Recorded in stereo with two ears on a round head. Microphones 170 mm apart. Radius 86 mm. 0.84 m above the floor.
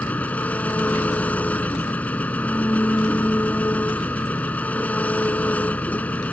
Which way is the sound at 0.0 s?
10° left (ahead or behind).